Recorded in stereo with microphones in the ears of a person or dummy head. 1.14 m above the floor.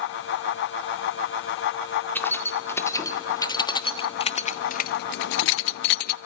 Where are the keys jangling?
10° left (ahead or behind), 1.9 m; by 6.2 s 55° left (ahead or behind), 0.7 m.